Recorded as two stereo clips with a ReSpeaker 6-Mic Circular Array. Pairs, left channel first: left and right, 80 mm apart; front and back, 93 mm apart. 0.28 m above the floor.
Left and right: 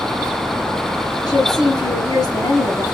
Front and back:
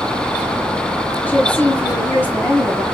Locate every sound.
1.3 s a woman speaking: 70° left, 2 m